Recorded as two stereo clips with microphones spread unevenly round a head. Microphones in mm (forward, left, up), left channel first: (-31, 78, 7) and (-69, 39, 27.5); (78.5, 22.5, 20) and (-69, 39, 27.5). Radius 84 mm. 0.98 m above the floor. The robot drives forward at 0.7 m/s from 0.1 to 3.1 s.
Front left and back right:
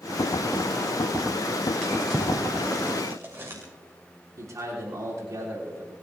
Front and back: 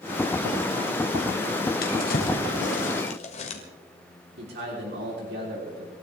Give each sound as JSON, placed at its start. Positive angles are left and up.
{"t": 1.8, "sound": "a drawer", "azimuth_deg": -45, "distance_m": 2.5}
{"t": 4.4, "sound": "a man speaking", "azimuth_deg": -165, "distance_m": 3.5}